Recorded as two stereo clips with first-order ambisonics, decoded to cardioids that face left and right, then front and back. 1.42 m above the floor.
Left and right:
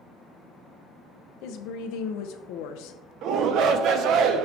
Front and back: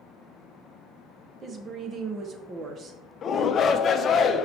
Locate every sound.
1.4 s a woman speaking: 115° left, 0.9 m
3.2 s a shout: 55° right, 0.7 m